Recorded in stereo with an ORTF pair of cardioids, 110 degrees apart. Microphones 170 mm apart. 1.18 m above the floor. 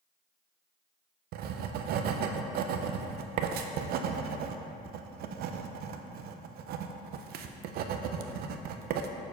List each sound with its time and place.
1.3 s writing: 70° right, 0.6 m